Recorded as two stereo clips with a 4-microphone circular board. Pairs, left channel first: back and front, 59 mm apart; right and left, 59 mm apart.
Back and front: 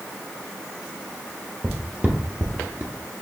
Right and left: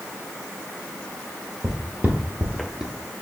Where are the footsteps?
60° left, 1.3 m; by 2.9 s 5° left, 0.8 m.